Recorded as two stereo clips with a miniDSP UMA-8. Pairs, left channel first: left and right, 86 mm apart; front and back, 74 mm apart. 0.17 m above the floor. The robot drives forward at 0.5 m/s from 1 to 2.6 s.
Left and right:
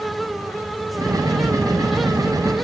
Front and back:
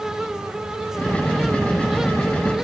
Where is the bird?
No bird in this recording.